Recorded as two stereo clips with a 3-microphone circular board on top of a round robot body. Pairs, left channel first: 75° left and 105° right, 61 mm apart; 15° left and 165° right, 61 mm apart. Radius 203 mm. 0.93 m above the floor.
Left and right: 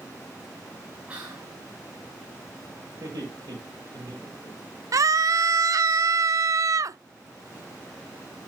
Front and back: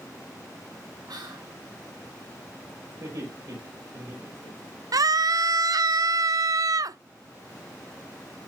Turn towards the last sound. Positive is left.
turn(degrees=-140)